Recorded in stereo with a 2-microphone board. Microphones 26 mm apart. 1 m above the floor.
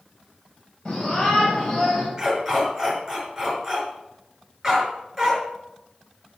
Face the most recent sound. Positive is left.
turn(degrees=-10)  # may be behind; listen again after turning